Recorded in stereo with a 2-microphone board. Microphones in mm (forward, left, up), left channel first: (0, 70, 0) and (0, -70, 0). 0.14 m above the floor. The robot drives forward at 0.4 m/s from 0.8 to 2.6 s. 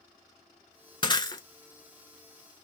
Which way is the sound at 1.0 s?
35° left (ahead or behind).